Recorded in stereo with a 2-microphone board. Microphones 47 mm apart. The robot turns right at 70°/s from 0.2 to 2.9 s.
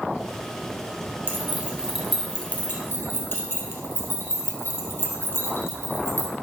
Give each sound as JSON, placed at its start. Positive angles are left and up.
{"t": 1.3, "sound": "keys jangling", "side_deg": -50, "distance_m": 2.0}